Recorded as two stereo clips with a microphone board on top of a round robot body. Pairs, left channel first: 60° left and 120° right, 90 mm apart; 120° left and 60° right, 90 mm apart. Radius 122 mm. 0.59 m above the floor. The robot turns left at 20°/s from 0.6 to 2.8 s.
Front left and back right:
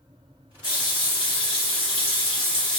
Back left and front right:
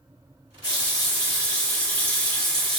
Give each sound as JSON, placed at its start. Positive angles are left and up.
{"t": 0.6, "sound": "a running tap", "azimuth_deg": 75, "distance_m": 1.5}